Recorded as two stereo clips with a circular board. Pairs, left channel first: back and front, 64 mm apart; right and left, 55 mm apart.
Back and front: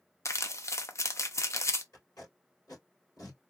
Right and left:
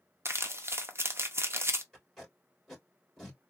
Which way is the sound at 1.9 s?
170° right.